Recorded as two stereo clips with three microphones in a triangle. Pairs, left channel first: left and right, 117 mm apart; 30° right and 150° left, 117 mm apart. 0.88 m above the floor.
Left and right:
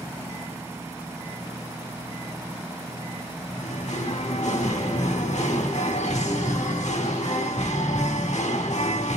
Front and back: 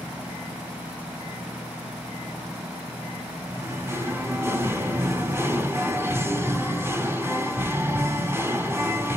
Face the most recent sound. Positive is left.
turn(degrees=80)